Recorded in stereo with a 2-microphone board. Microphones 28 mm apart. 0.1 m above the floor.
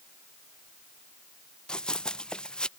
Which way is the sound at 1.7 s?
30° left (ahead or behind).